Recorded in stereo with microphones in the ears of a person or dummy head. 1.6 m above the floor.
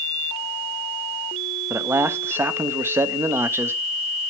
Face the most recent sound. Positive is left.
turn(degrees=-10)  # may be behind; listen again after turning